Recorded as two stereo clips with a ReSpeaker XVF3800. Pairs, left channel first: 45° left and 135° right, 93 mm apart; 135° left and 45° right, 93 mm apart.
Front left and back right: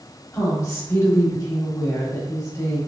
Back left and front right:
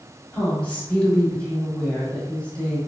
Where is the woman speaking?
70° left, 1.5 m.